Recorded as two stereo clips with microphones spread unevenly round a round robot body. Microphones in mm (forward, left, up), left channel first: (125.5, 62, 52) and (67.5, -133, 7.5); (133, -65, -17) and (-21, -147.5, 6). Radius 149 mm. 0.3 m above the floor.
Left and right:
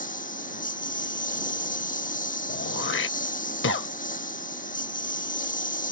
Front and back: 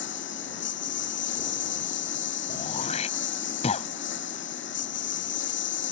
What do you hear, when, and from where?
0.0 s a lawn mower: 25° left
2.5 s throat clearing: 70° left